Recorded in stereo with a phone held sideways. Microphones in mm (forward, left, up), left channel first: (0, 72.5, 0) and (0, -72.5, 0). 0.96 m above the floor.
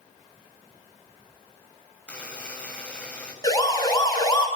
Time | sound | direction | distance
2.1 | a buzzer | 10° left (ahead or behind) | 6.5 m
3.4 | a siren | 25° left (ahead or behind) | 8.5 m